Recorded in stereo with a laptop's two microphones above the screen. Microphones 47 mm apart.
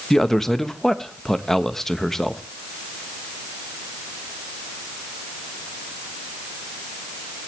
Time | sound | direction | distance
0.1 | a man speaking | 5° left (ahead or behind) | 1.1 m